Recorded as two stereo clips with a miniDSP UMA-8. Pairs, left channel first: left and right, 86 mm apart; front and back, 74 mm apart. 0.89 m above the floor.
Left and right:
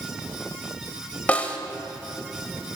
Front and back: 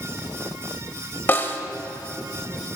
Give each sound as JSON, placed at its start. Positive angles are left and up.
{"t": 1.3, "sound": "a snare drum", "azimuth_deg": 30, "distance_m": 0.7}